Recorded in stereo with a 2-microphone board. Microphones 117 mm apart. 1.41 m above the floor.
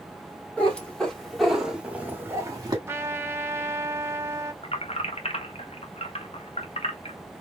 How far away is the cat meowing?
About 2 m.